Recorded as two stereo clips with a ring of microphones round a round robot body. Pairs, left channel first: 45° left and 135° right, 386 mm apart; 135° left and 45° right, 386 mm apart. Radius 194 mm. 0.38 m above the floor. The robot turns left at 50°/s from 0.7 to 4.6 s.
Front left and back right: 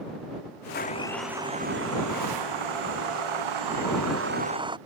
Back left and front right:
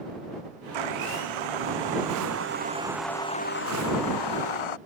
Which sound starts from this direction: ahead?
A blender, at 0.7 s.